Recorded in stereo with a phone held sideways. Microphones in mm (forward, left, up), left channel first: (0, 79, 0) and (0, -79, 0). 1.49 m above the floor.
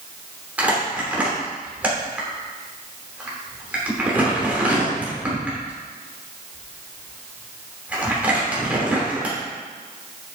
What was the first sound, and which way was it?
Crumpling, 10° right (ahead or behind).